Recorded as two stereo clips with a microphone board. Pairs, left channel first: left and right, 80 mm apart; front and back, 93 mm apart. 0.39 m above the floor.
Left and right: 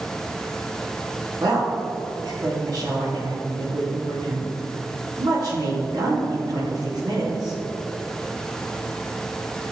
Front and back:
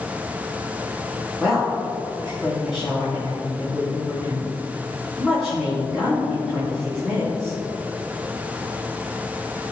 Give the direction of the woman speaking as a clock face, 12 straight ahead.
3 o'clock.